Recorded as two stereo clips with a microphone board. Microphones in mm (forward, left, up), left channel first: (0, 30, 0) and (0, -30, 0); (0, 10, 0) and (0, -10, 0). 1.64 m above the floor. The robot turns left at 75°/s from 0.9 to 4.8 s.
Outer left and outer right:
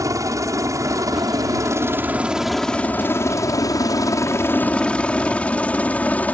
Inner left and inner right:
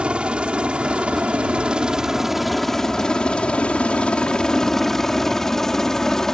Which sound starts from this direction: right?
A helicopter, at 0.0 s.